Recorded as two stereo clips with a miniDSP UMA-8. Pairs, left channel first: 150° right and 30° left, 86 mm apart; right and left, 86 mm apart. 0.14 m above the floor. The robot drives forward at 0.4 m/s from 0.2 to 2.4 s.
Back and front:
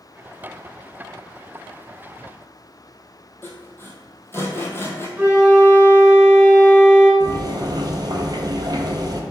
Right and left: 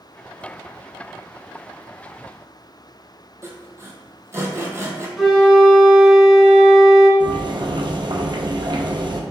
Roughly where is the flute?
Ahead.